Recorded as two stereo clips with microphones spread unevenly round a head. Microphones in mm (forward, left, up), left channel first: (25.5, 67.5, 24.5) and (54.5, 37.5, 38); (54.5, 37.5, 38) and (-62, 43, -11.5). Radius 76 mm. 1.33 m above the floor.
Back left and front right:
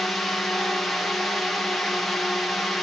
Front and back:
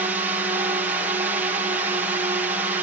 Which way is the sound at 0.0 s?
155° right.